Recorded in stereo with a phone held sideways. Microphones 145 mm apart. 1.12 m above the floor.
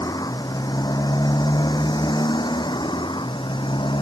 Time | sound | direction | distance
0.0 | a motorcycle | 25° left (ahead or behind) | ?